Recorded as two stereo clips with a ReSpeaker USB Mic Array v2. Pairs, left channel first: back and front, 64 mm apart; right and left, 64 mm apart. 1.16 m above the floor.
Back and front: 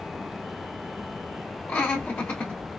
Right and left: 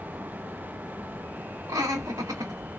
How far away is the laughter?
About 1.1 m.